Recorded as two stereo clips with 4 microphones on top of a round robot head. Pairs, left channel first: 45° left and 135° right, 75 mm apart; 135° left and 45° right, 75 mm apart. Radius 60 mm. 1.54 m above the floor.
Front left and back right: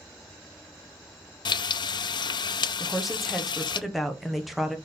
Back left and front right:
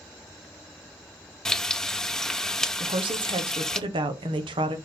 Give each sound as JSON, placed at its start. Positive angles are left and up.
{"t": 1.4, "sound": "frying", "azimuth_deg": 55, "distance_m": 0.6}
{"t": 2.8, "sound": "a woman speaking", "azimuth_deg": -50, "distance_m": 1.2}